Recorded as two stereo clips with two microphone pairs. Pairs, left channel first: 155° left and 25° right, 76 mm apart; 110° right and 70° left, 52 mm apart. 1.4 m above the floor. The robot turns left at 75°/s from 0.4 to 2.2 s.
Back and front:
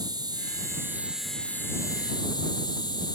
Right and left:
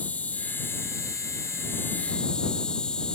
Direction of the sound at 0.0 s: 50° right.